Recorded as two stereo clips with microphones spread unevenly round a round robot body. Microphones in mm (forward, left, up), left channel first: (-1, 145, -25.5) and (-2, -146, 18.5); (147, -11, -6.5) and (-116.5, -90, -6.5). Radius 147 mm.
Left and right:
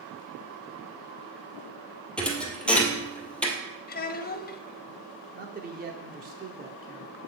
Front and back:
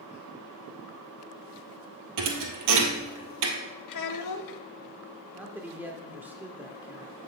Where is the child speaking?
35° left, 1.0 m.